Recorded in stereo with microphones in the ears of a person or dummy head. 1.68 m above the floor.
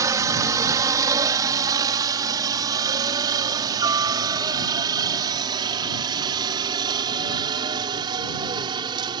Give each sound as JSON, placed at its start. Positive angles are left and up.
{"t": 0.0, "sound": "a helicopter", "side_deg": -20}